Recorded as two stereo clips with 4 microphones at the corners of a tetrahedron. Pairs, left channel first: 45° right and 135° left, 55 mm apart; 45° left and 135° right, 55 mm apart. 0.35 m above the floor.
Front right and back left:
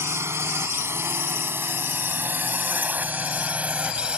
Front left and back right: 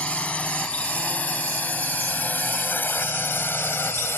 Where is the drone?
110° left; by 4.2 s 70° left.